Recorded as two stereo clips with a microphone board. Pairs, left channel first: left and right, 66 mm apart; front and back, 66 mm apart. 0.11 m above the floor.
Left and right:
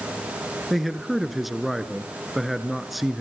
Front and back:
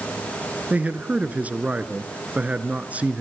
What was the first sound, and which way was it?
A man speaking, 175° right.